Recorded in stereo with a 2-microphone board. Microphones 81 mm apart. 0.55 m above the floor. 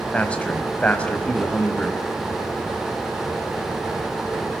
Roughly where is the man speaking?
Centre.